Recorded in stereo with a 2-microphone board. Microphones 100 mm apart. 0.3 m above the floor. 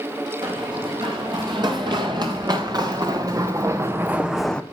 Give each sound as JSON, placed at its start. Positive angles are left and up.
{"t": 0.4, "sound": "running footsteps", "side_deg": -50, "distance_m": 4.5}